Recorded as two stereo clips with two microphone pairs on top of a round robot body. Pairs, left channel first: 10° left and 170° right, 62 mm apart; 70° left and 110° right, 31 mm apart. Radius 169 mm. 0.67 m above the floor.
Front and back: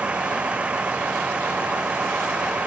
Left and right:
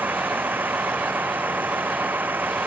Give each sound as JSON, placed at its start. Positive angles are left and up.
{"t": 0.0, "sound": "a vehicle", "azimuth_deg": -100}